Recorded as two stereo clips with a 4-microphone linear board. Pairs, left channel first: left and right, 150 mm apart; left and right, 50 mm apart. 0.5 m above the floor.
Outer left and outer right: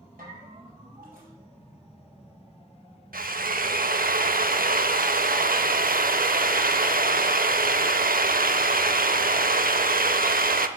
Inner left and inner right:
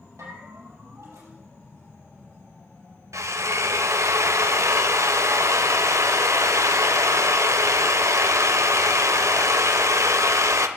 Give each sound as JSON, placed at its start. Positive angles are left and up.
{"t": 0.2, "sound": "a bell", "side_deg": -90, "distance_m": 4.0}
{"t": 3.1, "sound": "a drill", "side_deg": -80, "distance_m": 0.6}